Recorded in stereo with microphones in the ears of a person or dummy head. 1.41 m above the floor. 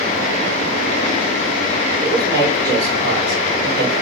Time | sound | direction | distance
2.0 | a man speaking | 50° right (ahead or behind) | 4.5 m